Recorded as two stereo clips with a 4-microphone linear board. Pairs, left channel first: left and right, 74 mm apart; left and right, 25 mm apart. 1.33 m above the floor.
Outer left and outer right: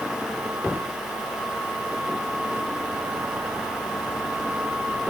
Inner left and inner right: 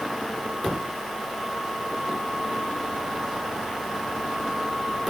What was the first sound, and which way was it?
Only background noise.